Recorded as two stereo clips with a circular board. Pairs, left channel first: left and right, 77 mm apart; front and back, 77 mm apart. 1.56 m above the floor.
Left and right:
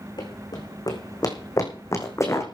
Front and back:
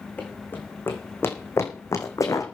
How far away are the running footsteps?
About 4 m.